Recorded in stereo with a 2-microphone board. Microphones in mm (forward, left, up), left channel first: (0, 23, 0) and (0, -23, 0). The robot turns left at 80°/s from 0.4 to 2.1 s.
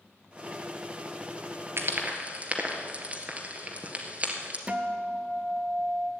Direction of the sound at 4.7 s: 25° right (ahead or behind).